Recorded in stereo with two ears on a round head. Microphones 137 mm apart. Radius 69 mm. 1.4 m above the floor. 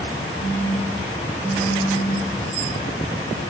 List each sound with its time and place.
0.4 s a phone buzzing: 55° left (ahead or behind), 6 m